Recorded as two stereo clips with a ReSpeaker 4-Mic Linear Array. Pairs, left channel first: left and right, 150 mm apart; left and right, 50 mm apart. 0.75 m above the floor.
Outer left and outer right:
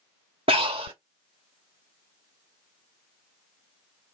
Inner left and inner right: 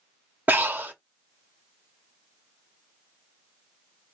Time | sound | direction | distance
0.5 | breathing | 40° right (ahead or behind) | 1.5 m